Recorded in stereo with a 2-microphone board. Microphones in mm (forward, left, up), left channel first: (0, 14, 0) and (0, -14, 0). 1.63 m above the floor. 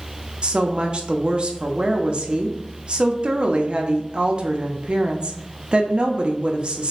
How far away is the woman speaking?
About 0.6 m.